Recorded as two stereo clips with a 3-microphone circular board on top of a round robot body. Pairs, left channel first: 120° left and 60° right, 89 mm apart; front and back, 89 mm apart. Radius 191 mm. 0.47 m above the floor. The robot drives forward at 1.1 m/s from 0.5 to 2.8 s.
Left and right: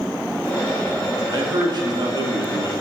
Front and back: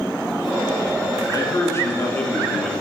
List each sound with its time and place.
1.3 s a man speaking: 40° right, 2.5 m; by 2.7 s 90° right, 1.9 m